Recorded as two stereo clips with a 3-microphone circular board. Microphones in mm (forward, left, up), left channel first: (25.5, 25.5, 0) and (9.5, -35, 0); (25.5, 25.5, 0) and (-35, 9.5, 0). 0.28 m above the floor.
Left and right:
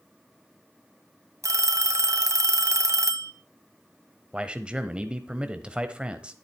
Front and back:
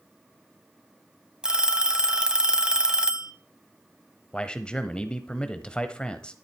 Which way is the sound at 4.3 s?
45° right.